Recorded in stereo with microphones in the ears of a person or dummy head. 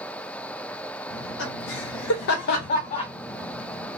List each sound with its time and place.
1.1 s laughter: 70° left (ahead or behind), 1.0 m; by 4.0 s centre (ahead or behind), 0.8 m